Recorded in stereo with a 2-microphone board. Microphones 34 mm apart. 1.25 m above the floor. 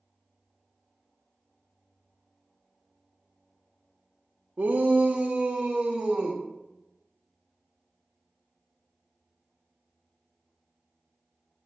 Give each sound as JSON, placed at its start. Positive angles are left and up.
{"t": 4.6, "sound": "a shout", "side_deg": -75, "distance_m": 0.7}